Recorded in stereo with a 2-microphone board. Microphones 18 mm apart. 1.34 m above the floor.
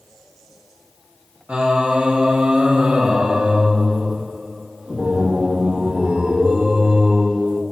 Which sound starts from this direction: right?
Singing, at 1.5 s.